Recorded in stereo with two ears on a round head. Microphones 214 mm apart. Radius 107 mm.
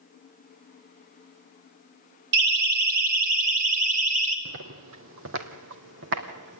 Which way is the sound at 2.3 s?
45° right (ahead or behind).